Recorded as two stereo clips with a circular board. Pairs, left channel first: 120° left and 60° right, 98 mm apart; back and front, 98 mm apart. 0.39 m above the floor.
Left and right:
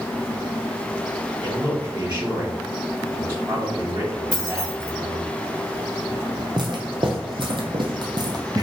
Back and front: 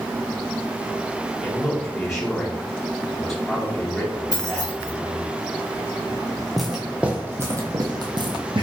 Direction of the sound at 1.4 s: 90° right.